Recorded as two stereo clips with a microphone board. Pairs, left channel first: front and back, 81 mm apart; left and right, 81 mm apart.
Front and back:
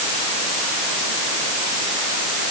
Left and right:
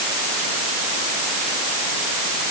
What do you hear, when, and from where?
Only background noise.